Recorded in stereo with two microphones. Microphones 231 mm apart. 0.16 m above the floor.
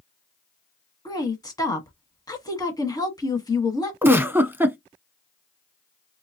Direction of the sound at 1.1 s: 15° left (ahead or behind).